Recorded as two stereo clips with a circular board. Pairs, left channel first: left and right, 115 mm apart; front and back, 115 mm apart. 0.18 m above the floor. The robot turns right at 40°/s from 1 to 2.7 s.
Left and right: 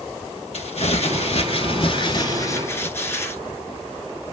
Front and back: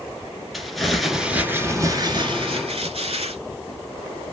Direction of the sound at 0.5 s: 90° left.